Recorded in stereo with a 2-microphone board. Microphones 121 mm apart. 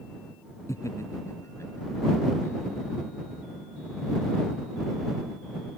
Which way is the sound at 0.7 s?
25° left (ahead or behind).